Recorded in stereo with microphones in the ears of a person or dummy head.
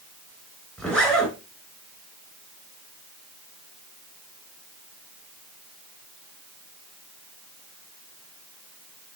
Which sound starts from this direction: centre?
A zipper, at 0.8 s.